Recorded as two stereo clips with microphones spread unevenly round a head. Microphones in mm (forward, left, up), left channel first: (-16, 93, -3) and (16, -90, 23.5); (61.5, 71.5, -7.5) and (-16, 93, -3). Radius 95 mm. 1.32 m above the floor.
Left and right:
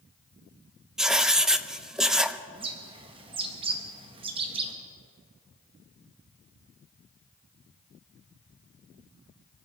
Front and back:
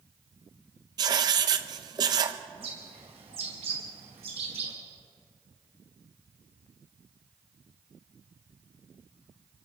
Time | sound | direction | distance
1.0 | writing | 160° right | 0.6 m
2.5 | a bird | 145° right | 1.9 m